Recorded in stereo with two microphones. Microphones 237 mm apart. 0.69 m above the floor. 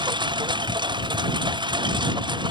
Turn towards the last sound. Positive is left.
turn(degrees=-20)  # may be behind; listen again after turning